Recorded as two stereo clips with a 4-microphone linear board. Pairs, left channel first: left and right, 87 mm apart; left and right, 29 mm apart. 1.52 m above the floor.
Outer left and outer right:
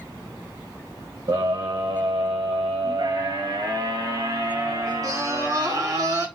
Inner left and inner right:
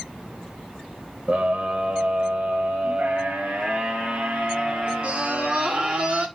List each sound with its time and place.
1.3 s a scream: 65° right (ahead or behind), 1.2 m; by 6.3 s 40° right (ahead or behind), 4 m